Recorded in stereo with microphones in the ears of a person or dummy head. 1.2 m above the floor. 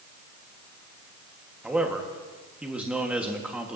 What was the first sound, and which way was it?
A man speaking, centre (ahead or behind).